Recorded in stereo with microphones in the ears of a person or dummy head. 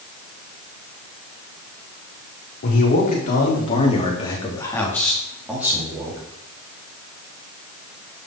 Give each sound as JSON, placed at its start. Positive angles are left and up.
{"t": 2.6, "sound": "a man speaking", "side_deg": 50, "distance_m": 5.0}